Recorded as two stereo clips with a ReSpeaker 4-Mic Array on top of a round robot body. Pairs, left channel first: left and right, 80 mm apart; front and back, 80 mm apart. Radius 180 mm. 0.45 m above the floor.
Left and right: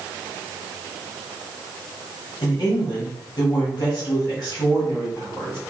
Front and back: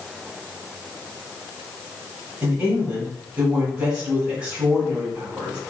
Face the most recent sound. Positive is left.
turn(degrees=115)